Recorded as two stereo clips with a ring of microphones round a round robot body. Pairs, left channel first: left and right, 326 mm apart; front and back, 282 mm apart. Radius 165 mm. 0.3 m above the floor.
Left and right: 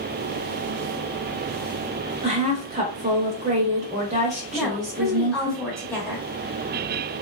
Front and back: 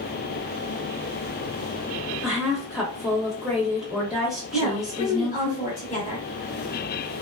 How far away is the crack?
I don't hear a crack.